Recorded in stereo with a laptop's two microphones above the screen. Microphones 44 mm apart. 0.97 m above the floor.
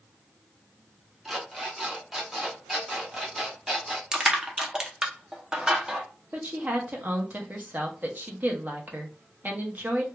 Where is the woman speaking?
45° right (ahead or behind), 0.6 m.